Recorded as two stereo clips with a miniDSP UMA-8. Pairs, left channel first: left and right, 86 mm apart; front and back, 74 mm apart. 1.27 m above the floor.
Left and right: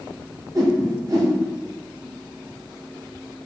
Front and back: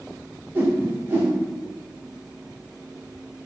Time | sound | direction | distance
0.6 | a whoosh | 120° right | 0.9 m